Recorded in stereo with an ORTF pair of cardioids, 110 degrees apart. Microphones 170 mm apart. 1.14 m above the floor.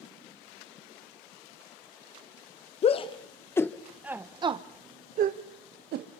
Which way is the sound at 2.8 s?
40° left.